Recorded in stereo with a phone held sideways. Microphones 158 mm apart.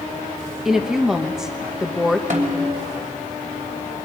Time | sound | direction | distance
0.7 | a woman speaking | 5° right (ahead or behind) | 1.1 m
2.3 | a snare drum | 60° right (ahead or behind) | 3 m